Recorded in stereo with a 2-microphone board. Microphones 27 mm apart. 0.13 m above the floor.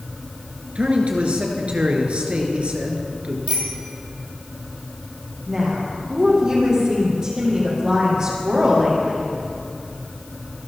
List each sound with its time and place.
0.8 s a man speaking: 50° right (ahead or behind), 2.5 m
3.5 s a bicycle bell: 60° right (ahead or behind), 3 m
5.5 s a woman speaking: 25° right (ahead or behind), 6 m